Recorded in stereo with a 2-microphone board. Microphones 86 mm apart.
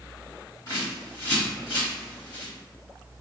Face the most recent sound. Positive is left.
turn(degrees=50)  # may be behind; listen again after turning